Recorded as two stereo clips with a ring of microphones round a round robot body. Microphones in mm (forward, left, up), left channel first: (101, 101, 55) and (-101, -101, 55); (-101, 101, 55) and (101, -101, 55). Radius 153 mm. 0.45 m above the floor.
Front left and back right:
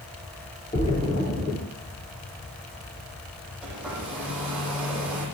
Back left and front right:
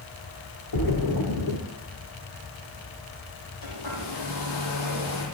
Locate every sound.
0.7 s a splash: 115° left, 4 m
3.6 s a hair dryer: 140° left, 10 m